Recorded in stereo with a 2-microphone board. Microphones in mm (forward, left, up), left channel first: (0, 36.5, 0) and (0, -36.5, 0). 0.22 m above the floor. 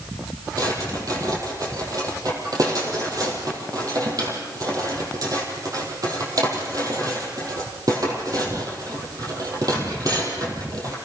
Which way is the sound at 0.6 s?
55° right (ahead or behind).